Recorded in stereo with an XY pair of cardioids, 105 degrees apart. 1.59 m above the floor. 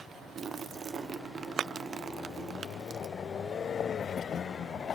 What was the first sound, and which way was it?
A splash, 40° right.